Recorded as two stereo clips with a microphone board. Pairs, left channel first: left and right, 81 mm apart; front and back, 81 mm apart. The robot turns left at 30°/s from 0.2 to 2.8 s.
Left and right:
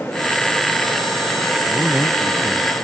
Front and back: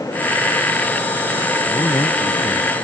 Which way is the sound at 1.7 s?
25° left.